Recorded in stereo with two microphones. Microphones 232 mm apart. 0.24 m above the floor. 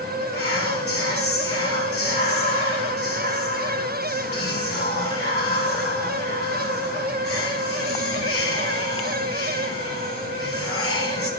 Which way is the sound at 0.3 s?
50° left (ahead or behind).